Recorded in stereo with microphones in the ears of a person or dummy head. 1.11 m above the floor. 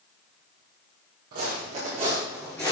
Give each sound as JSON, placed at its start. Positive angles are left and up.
{"t": 1.3, "sound": "footsteps", "side_deg": -40, "distance_m": 2.0}